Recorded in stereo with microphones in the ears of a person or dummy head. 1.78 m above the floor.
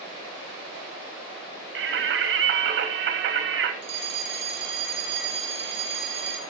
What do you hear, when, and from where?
1.8 s singing: 70° right (ahead or behind), 1.9 m
3.8 s a fire alarm: 50° right (ahead or behind), 1.8 m